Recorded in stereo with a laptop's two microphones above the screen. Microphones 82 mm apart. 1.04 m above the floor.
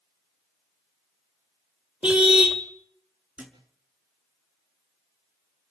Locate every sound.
2.0 s a car horn: 10° right (ahead or behind), 2.5 m
3.4 s a thud: 10° right (ahead or behind), 5.5 m